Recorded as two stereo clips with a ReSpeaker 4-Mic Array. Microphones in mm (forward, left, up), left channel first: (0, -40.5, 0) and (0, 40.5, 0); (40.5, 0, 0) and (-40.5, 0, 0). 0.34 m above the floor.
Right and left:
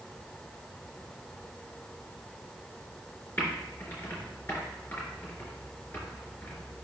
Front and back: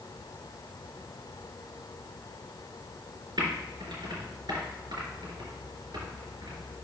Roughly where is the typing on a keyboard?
Behind right.